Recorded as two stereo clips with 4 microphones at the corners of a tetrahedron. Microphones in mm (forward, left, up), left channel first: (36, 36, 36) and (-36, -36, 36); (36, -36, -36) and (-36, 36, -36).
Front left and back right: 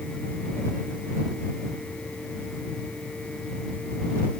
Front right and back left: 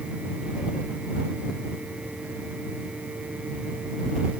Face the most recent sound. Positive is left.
No sound to turn to.